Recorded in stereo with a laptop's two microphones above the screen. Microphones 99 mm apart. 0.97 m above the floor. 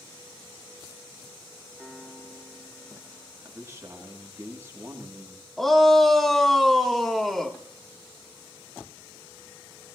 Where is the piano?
Centre (ahead or behind), 3.5 m.